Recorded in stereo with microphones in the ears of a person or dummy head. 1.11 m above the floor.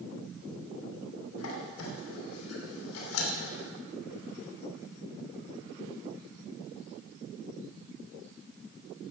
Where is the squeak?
80° left, 3 m.